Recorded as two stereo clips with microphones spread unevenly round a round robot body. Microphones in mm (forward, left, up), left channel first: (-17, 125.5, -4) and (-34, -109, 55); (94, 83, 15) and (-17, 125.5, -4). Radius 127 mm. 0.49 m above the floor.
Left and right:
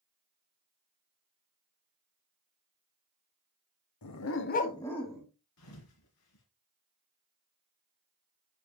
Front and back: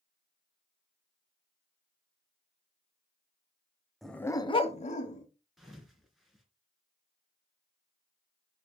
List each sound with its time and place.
4.0 s a dog barking: 70° left, 0.8 m; by 5.3 s 10° right, 1.2 m
5.6 s a thud: 70° left, 2.5 m